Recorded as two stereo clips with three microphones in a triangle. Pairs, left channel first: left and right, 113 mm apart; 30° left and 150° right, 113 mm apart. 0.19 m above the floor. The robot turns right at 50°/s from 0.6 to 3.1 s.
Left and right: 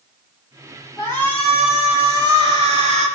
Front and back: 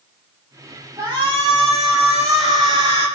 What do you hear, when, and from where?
1.0 s a shout: 150° left, 6.5 m; by 3.1 s 105° right, 6.5 m